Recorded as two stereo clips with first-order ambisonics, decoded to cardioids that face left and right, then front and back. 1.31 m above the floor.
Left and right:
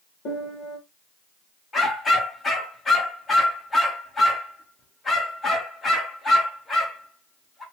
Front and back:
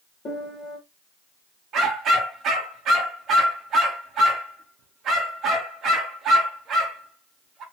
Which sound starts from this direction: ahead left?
A piano, at 0.2 s.